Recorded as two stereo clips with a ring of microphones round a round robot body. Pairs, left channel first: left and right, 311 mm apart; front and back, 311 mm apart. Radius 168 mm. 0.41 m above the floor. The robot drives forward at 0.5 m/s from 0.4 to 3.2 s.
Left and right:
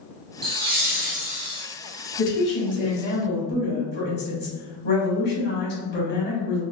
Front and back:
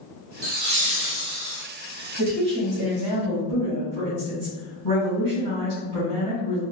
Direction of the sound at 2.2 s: 135° left.